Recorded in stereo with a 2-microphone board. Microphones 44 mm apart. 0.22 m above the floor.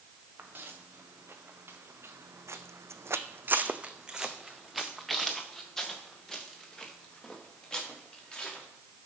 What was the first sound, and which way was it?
Footsteps, 45° right (ahead or behind).